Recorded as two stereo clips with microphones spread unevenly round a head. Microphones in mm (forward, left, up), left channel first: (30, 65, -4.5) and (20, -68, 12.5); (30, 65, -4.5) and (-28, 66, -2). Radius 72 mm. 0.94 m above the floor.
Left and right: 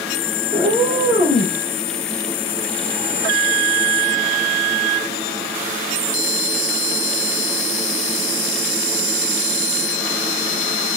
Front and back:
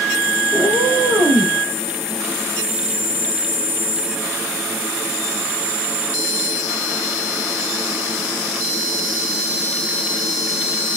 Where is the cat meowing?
145° left, 3.5 m; by 1.6 s 155° left, 3 m.